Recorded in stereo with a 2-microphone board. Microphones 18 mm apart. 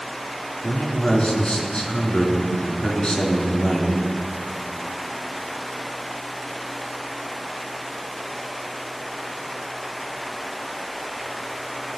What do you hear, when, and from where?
0.6 s a man speaking: 40° left (ahead or behind), 3 m